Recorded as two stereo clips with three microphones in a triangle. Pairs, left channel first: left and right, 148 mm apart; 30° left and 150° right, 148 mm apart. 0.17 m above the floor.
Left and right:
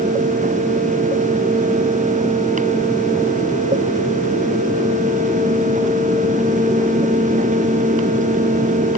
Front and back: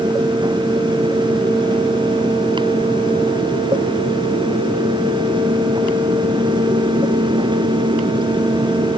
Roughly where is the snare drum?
I don't hear a snare drum.